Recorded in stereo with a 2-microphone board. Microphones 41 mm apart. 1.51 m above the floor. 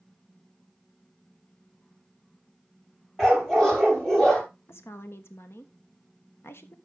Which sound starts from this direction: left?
A woman speaking, at 4.7 s.